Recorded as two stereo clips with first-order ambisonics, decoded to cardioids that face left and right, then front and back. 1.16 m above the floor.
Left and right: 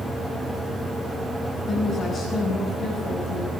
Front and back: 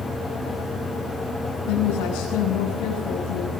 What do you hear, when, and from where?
1.7 s a woman speaking: 20° left, 7 m